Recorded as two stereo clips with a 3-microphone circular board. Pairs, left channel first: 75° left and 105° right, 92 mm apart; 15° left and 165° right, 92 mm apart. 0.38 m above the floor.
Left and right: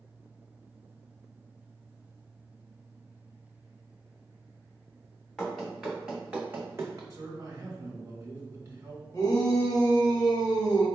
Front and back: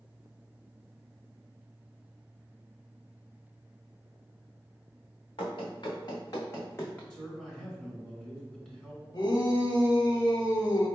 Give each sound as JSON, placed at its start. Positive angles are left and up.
{"t": 5.4, "sound": "running footsteps", "azimuth_deg": -10, "distance_m": 1.6}
{"t": 7.1, "sound": "a man speaking", "azimuth_deg": -60, "distance_m": 1.8}
{"t": 9.1, "sound": "a shout", "azimuth_deg": 30, "distance_m": 1.3}